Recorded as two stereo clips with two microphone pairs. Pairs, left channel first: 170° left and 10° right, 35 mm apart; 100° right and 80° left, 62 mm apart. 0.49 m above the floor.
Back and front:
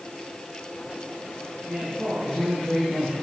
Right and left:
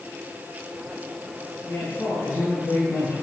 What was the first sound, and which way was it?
A man speaking, 65° right.